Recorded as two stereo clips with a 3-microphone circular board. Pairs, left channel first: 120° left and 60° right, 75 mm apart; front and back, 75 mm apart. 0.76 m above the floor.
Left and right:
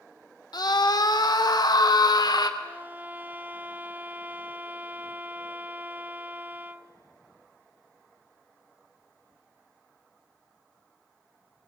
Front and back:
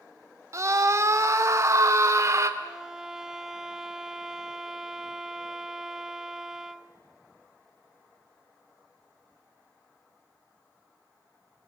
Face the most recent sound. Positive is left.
turn(degrees=-100)